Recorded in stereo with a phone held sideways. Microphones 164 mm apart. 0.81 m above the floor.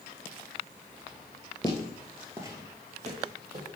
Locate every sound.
1.6 s footsteps: 25° left (ahead or behind), 0.8 m; by 3.7 s 55° right (ahead or behind), 1.5 m